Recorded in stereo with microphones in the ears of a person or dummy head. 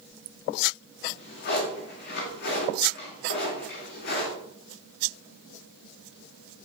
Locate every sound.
1.0 s a drawer: 60° left (ahead or behind), 3 m